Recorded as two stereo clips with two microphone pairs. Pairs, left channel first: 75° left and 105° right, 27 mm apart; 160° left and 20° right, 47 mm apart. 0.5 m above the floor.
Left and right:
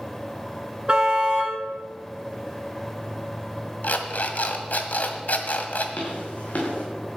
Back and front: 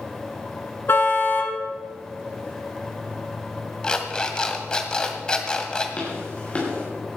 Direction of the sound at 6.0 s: 100° left.